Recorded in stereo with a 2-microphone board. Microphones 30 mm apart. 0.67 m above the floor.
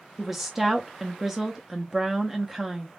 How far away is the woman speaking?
About 0.7 m.